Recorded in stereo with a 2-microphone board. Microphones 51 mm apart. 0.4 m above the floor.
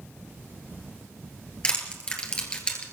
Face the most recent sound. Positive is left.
turn(degrees=20)  # may be behind; listen again after turning